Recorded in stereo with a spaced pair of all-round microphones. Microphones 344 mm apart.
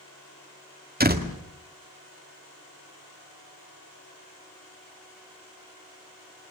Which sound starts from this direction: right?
A door slam, at 1.0 s.